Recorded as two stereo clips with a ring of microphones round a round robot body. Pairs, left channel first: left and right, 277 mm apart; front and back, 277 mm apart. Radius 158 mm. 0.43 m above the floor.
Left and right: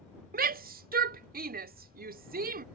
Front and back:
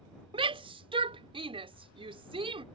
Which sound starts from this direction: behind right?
A shout, at 0.3 s.